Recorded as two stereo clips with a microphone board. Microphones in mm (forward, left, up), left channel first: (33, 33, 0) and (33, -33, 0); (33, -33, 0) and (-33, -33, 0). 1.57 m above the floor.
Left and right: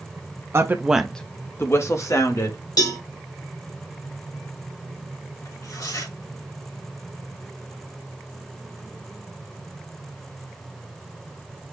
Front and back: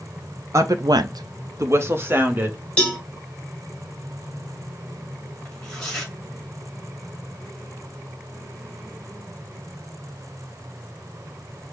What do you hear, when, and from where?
0.5 s a woman speaking: 135° right, 0.7 m; by 2.6 s 120° left, 1.7 m
2.8 s a cowbell: 75° left, 1.8 m
5.5 s tearing paper: 80° left, 2 m